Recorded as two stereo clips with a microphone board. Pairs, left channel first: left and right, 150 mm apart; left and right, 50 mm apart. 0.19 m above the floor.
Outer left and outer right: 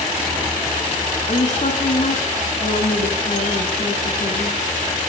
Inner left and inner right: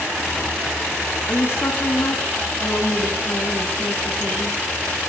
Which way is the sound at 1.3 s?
55° left (ahead or behind).